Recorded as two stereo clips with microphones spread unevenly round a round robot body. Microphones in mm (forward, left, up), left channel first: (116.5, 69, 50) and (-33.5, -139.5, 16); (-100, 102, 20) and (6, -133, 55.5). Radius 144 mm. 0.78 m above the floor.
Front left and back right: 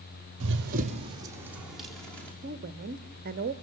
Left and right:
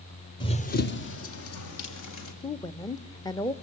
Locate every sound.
0.4 s running footsteps: 170° right, 1.2 m; by 2.3 s 135° left, 3 m
2.4 s a woman speaking: 175° right, 1.0 m